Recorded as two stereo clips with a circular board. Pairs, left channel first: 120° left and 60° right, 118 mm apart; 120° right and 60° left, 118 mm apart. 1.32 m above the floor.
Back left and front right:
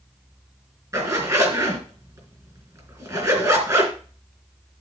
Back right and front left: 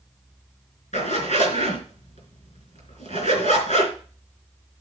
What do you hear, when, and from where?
0.9 s a zipper: 120° right, 3 m